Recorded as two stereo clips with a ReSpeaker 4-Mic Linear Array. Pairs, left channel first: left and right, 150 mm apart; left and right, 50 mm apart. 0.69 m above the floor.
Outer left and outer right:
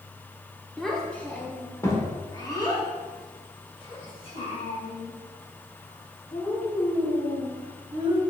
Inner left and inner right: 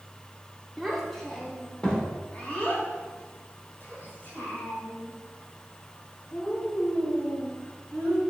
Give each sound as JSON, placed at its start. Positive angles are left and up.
{"t": 0.8, "sound": "a child speaking", "side_deg": 0, "distance_m": 1.4}